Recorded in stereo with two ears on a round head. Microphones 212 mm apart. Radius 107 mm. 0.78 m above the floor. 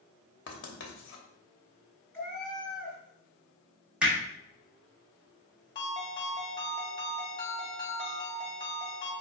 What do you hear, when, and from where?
0.5 s writing: 55° left (ahead or behind), 1.1 m
2.1 s a cat meowing: 10° left (ahead or behind), 2 m
4.0 s hammering: 5° right (ahead or behind), 1.6 m
5.8 s a ringtone: 20° left (ahead or behind), 2.0 m